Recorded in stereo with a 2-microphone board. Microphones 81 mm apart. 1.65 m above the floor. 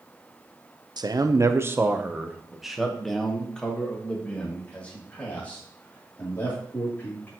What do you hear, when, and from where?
1.0 s a man speaking: 60° right (ahead or behind), 0.7 m; by 7.3 s 25° left (ahead or behind), 3.5 m